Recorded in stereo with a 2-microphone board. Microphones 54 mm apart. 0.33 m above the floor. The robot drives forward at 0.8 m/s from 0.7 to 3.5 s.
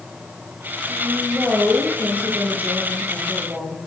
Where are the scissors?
No scissors in this recording.